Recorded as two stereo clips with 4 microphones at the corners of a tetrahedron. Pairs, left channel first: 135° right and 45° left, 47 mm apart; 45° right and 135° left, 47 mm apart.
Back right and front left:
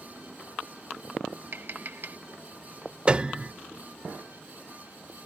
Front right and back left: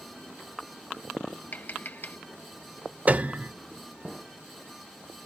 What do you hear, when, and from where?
1.5 s tapping: straight ahead
3.1 s a piano: 95° left